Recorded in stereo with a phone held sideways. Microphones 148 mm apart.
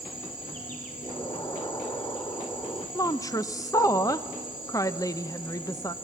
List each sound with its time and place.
0.0 s an insect: 65° left (ahead or behind), 3 m
1.0 s an explosion: 25° left (ahead or behind), 1.2 m
3.0 s a woman speaking: 25° left (ahead or behind), 0.6 m